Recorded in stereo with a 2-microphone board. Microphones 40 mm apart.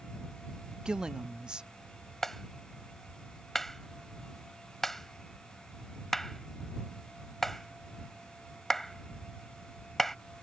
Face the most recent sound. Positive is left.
turn(degrees=10)  # may be behind; listen again after turning